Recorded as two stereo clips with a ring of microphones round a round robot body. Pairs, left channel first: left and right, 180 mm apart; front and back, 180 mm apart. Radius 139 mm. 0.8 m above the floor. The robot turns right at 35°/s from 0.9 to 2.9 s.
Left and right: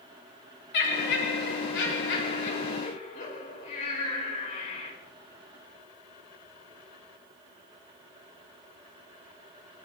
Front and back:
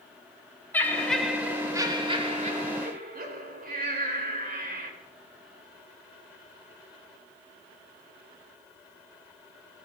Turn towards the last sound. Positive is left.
turn(degrees=150)